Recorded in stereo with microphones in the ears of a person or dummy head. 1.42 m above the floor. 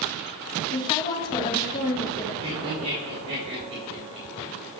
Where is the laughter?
35° right (ahead or behind), 3 m.